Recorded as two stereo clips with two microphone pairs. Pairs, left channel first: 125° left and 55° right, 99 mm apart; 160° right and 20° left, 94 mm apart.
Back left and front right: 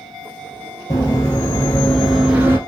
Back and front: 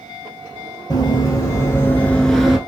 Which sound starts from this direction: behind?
Running footsteps, at 0.9 s.